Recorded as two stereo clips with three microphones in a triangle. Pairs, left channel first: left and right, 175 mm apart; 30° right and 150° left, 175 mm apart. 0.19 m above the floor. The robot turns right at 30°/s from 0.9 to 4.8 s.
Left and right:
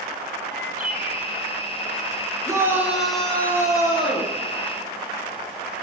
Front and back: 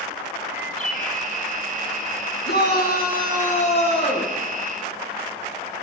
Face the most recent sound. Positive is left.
turn(degrees=50)